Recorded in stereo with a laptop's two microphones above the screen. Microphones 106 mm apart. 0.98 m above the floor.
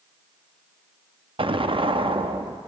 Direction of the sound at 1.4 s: 60° right (ahead or behind).